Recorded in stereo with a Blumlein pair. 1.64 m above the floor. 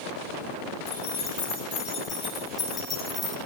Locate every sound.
0.9 s keys jangling: 45° left, 2 m; by 3.4 s straight ahead, 1.1 m